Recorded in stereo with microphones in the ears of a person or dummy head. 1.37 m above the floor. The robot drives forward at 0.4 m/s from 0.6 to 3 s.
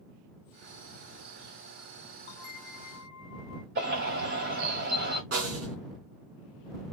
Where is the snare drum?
45° right (ahead or behind), 3 m.